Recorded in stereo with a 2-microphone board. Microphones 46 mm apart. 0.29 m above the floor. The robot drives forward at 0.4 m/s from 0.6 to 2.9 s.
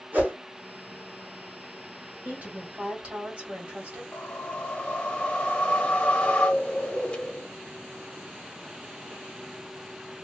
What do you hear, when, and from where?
0.1 s a whoosh: 40° right (ahead or behind), 1.8 m
2.2 s a woman speaking: 35° right (ahead or behind), 1.6 m; by 4.0 s 30° right (ahead or behind), 1.8 m
4.1 s a whoosh: 20° left (ahead or behind), 1.7 m